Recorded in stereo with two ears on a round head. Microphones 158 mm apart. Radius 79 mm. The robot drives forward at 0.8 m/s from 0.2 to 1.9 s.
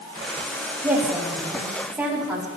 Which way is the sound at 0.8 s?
10° right (ahead or behind).